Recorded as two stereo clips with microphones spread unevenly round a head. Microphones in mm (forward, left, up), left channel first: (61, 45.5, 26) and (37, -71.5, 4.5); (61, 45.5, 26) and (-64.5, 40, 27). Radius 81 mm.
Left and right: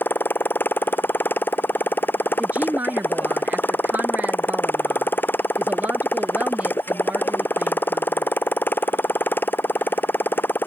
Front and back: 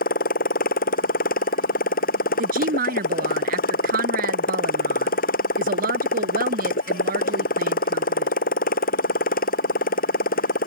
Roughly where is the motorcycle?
Ahead.